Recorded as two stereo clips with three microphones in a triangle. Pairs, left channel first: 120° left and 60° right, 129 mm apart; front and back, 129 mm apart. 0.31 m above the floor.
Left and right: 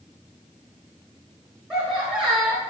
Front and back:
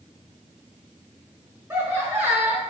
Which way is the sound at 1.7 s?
135° right.